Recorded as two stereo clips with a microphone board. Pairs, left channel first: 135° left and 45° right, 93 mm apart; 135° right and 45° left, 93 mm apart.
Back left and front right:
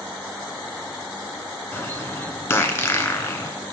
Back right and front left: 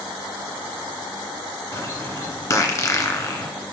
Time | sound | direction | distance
1.7 | a bird | 170° right | 1.4 m